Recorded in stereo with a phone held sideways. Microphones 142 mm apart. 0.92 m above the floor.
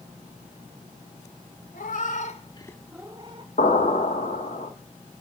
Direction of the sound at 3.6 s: 80° left.